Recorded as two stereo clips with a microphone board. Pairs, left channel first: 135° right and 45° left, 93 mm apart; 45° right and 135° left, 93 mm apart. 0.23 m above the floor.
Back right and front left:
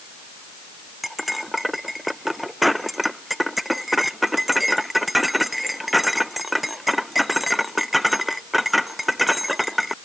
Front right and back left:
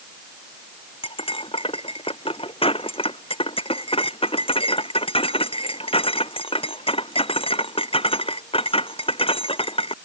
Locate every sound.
1.0 s cutlery clinking: 45° right